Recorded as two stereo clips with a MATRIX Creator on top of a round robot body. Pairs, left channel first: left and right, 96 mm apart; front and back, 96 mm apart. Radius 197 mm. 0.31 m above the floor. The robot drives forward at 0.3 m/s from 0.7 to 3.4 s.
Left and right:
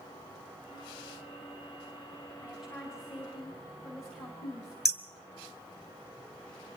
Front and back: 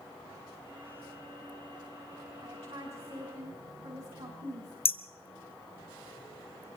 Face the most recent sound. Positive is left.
turn(degrees=-5)